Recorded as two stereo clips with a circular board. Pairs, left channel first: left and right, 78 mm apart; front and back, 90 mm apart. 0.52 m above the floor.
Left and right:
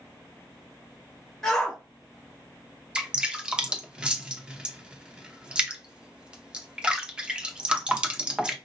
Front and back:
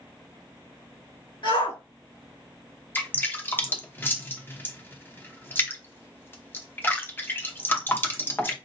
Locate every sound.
1.4 s a shout: 5° left, 2.5 m
3.0 s dripping: 25° right, 0.8 m